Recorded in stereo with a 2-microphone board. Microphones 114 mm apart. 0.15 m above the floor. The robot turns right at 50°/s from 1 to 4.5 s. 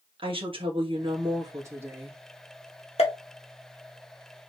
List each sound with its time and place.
0.2 s a woman speaking: 65° right, 2 m; by 2.2 s 5° right, 2 m
3.0 s a pop: 60° left (ahead or behind), 1.7 m; by 3.1 s 55° left (ahead or behind), 1.7 m